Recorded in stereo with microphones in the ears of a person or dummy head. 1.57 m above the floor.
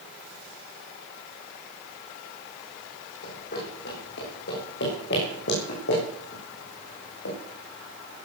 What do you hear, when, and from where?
3.2 s running footsteps: 55° left (ahead or behind), 6 m; by 7.4 s 70° left (ahead or behind), 8 m